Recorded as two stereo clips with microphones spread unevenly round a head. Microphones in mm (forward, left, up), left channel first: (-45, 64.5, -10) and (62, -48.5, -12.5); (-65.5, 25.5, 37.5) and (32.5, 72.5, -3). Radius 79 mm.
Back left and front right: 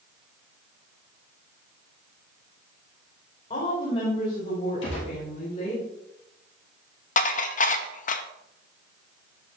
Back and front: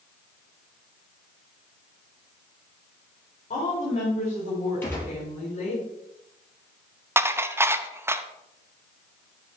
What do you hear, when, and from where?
3.5 s a woman speaking: straight behind, 4 m
4.8 s a gunshot: 140° left, 5 m
7.2 s dishes clattering: 90° left, 0.7 m